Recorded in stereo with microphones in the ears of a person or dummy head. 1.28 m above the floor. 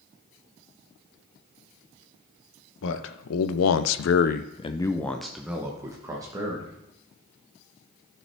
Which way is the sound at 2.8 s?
75° left (ahead or behind).